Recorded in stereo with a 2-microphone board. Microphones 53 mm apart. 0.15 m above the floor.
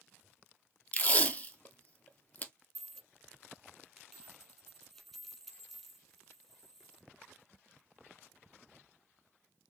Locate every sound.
0.9 s tape being pulled: 30° left (ahead or behind), 0.6 m
2.8 s a dropped coin: centre (ahead or behind), 2.0 m